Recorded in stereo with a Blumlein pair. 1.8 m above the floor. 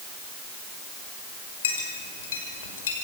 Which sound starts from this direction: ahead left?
A clink, at 1.6 s.